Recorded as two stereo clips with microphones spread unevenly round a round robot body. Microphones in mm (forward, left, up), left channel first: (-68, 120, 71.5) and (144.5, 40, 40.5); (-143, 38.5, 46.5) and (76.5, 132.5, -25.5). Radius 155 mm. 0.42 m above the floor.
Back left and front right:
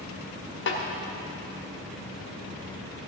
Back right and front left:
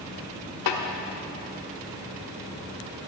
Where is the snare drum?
160° right, 1.1 m.